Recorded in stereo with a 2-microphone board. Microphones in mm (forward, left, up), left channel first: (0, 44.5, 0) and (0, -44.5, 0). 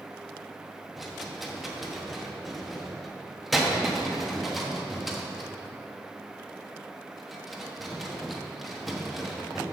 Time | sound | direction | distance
1.0 | a rattle | centre (ahead or behind) | 1.1 m